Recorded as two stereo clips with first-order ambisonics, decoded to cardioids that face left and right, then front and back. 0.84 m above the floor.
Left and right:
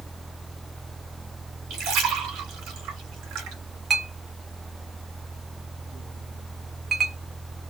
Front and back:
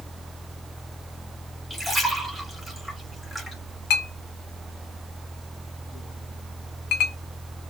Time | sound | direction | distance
1.7 | a splash | 85° right | 0.9 m
3.9 | a clink | 20° right | 0.5 m